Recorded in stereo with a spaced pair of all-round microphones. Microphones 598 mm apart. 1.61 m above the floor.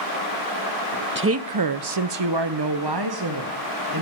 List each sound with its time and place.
1.1 s a woman speaking: 20° right (ahead or behind), 0.6 m; by 4.0 s 35° right (ahead or behind), 1.6 m